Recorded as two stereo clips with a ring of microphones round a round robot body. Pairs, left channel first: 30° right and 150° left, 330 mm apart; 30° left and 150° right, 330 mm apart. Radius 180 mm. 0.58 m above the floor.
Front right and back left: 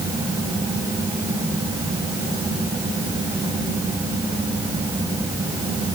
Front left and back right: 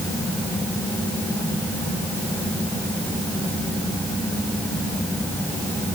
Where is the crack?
No crack in this recording.